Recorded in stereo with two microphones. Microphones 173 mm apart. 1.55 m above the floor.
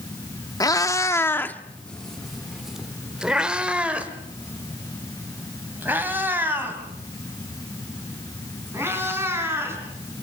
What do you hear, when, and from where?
0.6 s a cat meowing: 20° left (ahead or behind), 1.1 m; by 9.8 s 15° right (ahead or behind), 6.5 m